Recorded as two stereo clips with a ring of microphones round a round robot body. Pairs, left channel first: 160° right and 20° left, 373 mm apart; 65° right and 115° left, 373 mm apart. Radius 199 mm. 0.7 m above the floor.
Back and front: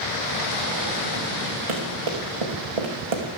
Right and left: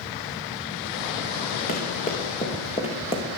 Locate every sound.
1.7 s running footsteps: straight ahead, 4.5 m; by 3.2 s 10° left, 4 m